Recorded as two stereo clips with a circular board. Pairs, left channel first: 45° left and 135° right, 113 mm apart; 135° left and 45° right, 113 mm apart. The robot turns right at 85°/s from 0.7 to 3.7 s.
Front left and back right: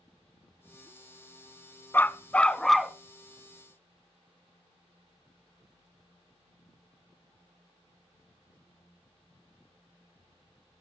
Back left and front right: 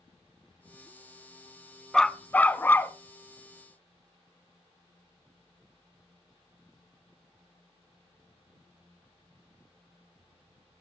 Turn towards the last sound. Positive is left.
turn(degrees=-150)